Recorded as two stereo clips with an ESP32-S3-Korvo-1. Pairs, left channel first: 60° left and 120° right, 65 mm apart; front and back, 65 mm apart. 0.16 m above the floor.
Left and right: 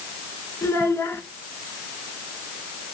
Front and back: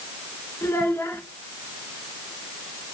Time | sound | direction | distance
0.6 | a child speaking | 25° left | 1.6 m